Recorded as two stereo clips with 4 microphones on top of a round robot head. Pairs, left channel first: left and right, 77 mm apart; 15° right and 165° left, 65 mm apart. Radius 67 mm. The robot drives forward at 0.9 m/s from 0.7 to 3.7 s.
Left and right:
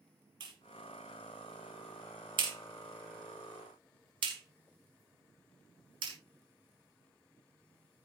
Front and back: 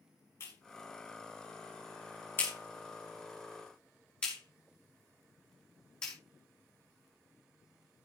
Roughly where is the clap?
Ahead right.